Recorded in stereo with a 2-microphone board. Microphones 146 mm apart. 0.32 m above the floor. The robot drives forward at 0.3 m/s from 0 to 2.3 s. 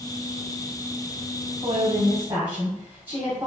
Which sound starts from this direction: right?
A woman speaking, at 1.6 s.